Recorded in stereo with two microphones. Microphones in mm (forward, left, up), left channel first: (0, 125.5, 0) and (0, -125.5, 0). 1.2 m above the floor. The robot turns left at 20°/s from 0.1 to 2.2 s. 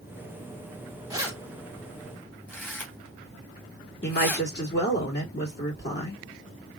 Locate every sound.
1.1 s keys jangling: 15° right (ahead or behind), 1.5 m; by 4.5 s 10° left (ahead or behind), 1.5 m
4.0 s a woman speaking: 45° left (ahead or behind), 2 m